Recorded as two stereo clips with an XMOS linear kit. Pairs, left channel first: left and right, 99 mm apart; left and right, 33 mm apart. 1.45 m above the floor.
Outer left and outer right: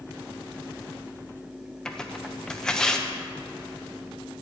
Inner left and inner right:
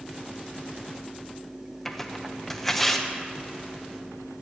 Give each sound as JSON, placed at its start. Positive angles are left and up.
{"t": 1.9, "sound": "tearing paper", "side_deg": 5, "distance_m": 0.9}